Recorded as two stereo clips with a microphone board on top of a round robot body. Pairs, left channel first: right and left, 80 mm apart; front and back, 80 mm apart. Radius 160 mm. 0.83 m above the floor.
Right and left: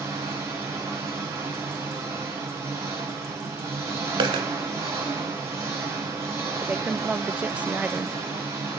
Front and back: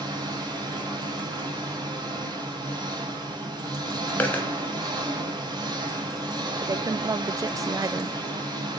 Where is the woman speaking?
160° left, 0.5 m.